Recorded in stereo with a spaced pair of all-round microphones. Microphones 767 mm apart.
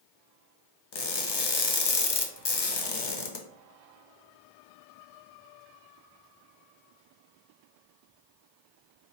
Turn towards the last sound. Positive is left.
turn(degrees=40)  # may be behind; listen again after turning